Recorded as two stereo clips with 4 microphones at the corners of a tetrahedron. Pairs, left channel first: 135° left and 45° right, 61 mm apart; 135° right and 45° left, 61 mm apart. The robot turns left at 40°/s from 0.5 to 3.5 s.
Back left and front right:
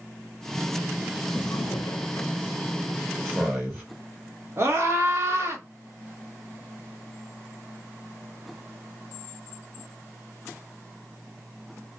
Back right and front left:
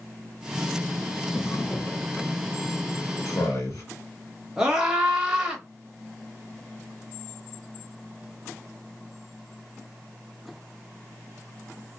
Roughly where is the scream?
Ahead right.